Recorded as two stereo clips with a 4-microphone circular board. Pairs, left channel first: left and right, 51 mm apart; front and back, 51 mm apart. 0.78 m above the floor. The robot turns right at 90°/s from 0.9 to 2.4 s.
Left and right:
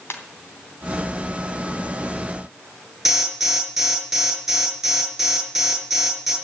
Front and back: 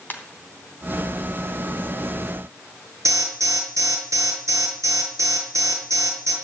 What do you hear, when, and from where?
0.1 s a ringtone: 55° left, 3 m
3.0 s an alarm: 175° right, 7.5 m